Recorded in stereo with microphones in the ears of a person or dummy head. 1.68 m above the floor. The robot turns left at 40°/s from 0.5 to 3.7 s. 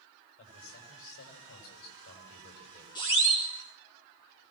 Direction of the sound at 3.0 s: 20° left (ahead or behind).